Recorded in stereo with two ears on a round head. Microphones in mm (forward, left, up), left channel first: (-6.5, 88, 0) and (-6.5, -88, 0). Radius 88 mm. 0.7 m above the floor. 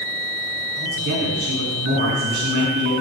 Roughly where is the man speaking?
Right.